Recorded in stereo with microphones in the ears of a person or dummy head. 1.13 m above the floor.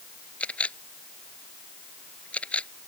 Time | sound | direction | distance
0.4 | a camera shutter | 10° left (ahead or behind) | ?